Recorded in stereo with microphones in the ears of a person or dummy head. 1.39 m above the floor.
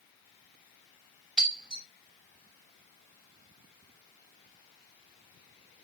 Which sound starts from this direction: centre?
Breaking glass, at 1.4 s.